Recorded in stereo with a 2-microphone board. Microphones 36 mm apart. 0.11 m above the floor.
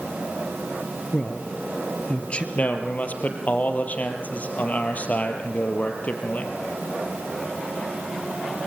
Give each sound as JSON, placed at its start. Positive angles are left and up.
{"t": 1.1, "sound": "a man speaking", "side_deg": 35, "distance_m": 2.5}
{"t": 2.5, "sound": "a man speaking", "side_deg": 45, "distance_m": 3.5}